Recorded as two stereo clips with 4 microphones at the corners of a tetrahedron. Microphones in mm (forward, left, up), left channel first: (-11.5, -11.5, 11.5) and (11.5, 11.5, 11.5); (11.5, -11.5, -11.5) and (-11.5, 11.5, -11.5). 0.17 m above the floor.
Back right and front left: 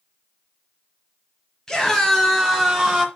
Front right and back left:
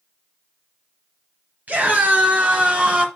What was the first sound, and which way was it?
A scream, 150° left.